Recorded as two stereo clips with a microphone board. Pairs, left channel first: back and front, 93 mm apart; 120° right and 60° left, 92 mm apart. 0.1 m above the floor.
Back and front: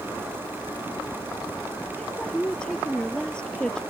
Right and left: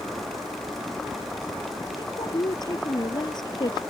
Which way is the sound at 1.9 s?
100° right.